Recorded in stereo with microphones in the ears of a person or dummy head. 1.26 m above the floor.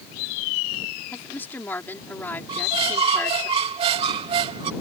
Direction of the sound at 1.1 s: 5° left (ahead or behind).